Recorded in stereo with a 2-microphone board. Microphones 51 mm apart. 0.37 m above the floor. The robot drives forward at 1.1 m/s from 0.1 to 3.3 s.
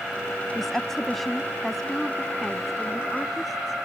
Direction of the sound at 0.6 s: 5° left (ahead or behind).